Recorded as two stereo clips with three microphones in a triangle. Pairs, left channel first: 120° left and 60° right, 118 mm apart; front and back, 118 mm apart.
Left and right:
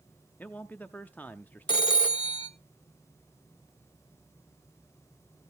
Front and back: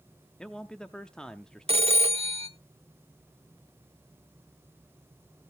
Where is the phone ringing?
160° left, 0.8 m.